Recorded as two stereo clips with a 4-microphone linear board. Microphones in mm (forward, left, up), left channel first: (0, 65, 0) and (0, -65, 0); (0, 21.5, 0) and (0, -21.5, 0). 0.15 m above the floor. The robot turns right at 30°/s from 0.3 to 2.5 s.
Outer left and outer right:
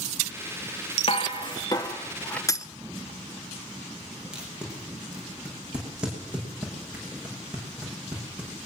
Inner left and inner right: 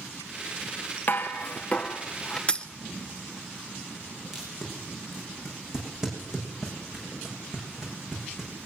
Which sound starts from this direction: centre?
Tape being pulled, at 4.3 s.